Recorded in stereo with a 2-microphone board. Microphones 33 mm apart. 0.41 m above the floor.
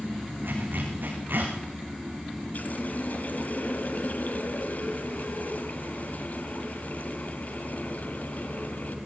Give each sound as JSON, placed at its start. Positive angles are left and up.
{"t": 0.4, "sound": "a zipper", "side_deg": -85, "distance_m": 5.5}
{"t": 2.5, "sound": "a running tap", "side_deg": 55, "distance_m": 1.9}